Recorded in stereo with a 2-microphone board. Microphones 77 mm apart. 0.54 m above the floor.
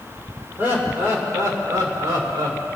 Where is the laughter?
25° right (ahead or behind), 1.9 m; by 2.6 s 60° right (ahead or behind), 2.5 m.